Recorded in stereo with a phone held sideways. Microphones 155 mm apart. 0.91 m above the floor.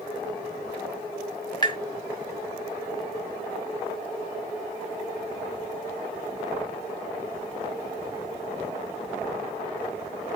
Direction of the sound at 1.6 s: 25° left (ahead or behind).